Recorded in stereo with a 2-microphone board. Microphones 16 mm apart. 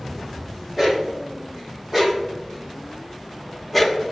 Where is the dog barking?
25° right (ahead or behind), 3.5 m; by 4.0 s 5° left (ahead or behind), 1.2 m.